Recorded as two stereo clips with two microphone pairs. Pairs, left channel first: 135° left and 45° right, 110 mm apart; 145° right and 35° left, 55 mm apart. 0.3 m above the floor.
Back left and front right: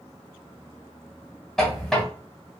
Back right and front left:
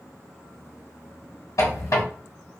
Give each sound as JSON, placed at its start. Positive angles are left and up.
{"t": 1.6, "sound": "a squeak", "azimuth_deg": -140, "distance_m": 1.1}